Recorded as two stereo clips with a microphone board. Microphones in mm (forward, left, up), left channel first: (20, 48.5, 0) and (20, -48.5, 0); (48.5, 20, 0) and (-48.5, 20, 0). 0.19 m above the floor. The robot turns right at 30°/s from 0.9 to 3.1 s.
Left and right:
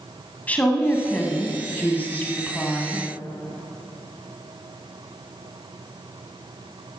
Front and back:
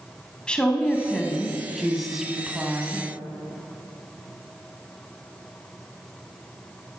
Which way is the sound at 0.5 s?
60° left.